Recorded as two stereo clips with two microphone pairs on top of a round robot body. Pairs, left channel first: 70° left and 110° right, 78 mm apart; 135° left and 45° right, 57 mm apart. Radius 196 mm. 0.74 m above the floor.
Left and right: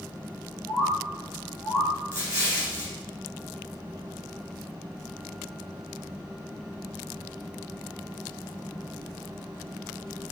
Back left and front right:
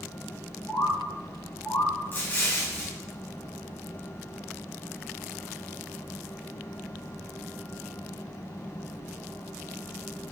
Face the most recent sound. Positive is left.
turn(degrees=-165)